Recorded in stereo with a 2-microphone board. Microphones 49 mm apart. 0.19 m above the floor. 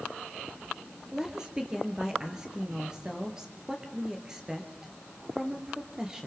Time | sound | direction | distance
1.1 | a woman speaking | 15° right (ahead or behind) | 4 m